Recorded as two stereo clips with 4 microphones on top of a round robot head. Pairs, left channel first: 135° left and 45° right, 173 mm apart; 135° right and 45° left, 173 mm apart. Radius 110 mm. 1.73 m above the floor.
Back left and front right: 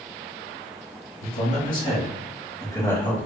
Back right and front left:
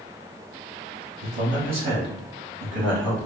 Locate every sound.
1.2 s a man speaking: 100° left, 1.4 m; by 3.3 s 50° left, 1.6 m